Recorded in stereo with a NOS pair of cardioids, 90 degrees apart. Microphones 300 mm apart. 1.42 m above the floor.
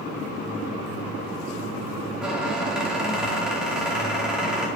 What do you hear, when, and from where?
2.2 s a squeak: straight ahead, 2 m